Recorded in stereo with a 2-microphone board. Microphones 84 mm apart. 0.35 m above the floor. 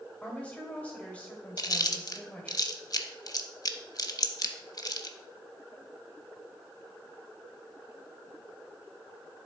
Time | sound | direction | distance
0.2 | a woman speaking | 15° left (ahead or behind) | 1.8 m
1.6 | chewing | 45° left (ahead or behind) | 0.6 m